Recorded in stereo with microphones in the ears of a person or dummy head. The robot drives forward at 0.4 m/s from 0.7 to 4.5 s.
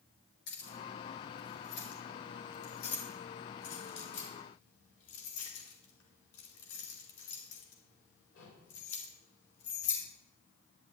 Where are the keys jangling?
60° left (ahead or behind), 4.5 m; by 10.0 s 75° left (ahead or behind), 4.5 m.